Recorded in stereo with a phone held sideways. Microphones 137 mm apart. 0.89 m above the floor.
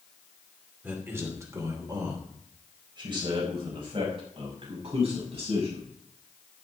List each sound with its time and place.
0.8 s a man speaking: 15° right (ahead or behind), 2.5 m; by 5.9 s 45° right (ahead or behind), 7 m